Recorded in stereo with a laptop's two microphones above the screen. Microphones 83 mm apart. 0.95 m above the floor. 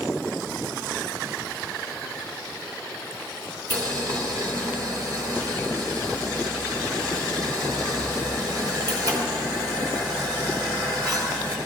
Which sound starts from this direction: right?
Boiling, at 3.7 s.